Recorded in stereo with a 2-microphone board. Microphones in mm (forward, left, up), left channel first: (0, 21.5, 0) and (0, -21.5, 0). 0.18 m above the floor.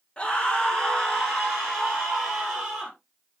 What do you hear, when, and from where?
0.2 s a scream: 30° left (ahead or behind), 2.0 m; by 2.9 s centre (ahead or behind), 5 m